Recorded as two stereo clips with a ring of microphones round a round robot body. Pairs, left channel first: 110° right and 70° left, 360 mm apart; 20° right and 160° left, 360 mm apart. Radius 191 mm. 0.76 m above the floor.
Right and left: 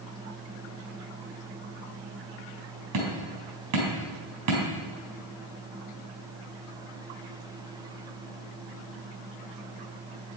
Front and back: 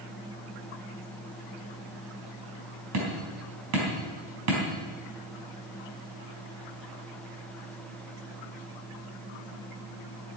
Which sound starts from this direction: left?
Hammering, at 2.9 s.